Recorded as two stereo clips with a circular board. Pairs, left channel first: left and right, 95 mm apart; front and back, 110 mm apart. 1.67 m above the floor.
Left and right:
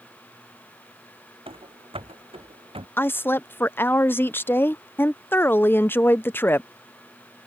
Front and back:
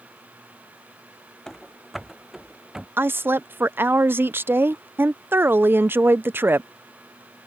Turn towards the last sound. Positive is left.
turn(degrees=130)